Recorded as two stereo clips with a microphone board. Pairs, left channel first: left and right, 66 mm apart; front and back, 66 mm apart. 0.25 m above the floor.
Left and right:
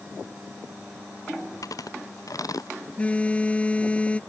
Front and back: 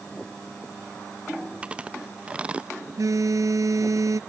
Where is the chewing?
110° left.